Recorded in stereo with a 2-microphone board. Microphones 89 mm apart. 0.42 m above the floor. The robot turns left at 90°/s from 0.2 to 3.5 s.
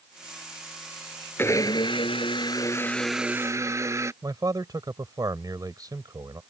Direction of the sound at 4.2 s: 45° right (ahead or behind).